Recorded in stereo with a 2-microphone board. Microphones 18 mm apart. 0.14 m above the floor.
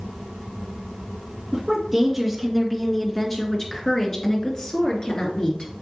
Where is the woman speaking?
20° right (ahead or behind), 2.5 m; by 5.7 s 55° left (ahead or behind), 3 m.